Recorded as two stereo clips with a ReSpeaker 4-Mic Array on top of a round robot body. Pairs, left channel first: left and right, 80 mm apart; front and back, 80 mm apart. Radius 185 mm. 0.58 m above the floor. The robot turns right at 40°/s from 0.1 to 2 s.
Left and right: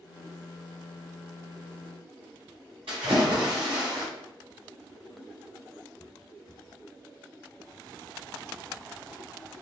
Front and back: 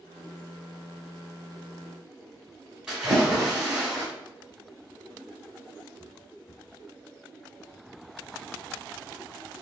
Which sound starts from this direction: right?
A splash, at 2.9 s.